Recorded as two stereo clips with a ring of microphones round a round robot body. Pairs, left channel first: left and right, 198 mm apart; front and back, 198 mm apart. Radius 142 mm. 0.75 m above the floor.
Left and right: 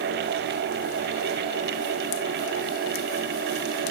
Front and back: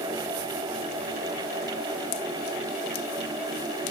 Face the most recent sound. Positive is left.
No sound to turn to.